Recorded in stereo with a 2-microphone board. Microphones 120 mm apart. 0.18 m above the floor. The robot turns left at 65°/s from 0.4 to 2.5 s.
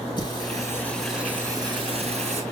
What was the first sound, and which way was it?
Singing, 45° left.